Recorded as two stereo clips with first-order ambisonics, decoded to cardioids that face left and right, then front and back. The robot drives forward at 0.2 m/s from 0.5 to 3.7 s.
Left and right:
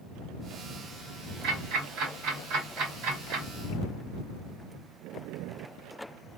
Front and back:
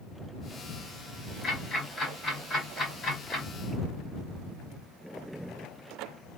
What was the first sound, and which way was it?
Ticking, 75° right.